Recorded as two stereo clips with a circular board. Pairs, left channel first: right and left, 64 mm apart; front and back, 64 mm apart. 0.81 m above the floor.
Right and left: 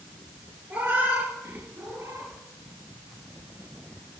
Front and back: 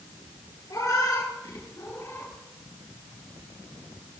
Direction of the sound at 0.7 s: 25° left.